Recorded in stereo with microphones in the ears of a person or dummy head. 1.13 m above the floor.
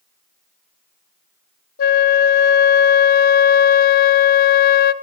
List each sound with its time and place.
1.8 s a flute: 45° left (ahead or behind), 0.6 m